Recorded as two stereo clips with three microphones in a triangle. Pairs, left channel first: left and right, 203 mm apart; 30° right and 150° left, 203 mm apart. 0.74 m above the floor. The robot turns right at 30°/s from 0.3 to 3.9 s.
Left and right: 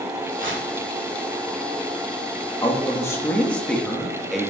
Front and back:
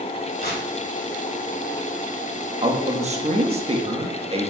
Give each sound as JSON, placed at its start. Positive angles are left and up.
{"t": 0.4, "sound": "tearing paper", "azimuth_deg": -70, "distance_m": 1.5}
{"t": 2.6, "sound": "a man speaking", "azimuth_deg": 140, "distance_m": 1.0}